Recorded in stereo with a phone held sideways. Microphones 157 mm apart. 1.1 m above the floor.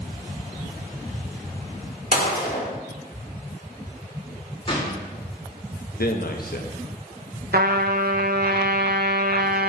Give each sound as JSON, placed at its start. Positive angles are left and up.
{"t": 2.1, "sound": "a gunshot", "side_deg": 60, "distance_m": 1.6}
{"t": 4.7, "sound": "a gunshot", "side_deg": 35, "distance_m": 2.0}
{"t": 6.0, "sound": "a man speaking", "side_deg": 70, "distance_m": 1.1}
{"t": 7.5, "sound": "a trumpet", "side_deg": -80, "distance_m": 0.6}